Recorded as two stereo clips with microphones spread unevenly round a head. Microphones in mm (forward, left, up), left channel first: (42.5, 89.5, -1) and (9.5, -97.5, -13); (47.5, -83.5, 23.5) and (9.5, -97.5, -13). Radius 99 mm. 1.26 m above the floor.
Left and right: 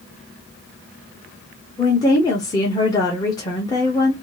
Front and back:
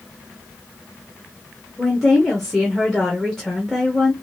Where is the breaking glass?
No breaking glass in this recording.